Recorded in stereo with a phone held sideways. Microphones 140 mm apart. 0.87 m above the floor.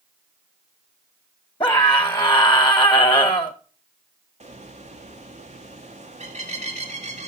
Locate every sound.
1.6 s a scream: 35° left (ahead or behind), 0.9 m
4.4 s a bird: 55° right (ahead or behind), 1.8 m